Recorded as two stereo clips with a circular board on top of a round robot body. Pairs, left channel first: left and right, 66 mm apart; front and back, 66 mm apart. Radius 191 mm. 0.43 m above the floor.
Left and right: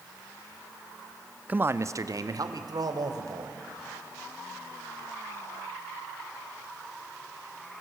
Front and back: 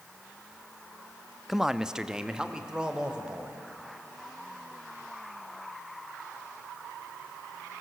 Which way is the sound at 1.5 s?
100° right.